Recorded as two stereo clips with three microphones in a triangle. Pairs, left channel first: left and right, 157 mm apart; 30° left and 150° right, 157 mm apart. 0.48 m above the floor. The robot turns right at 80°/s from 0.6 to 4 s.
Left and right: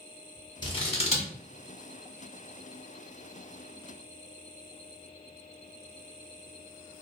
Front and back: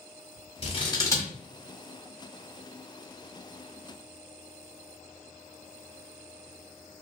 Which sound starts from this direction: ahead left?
Scissors, at 0.6 s.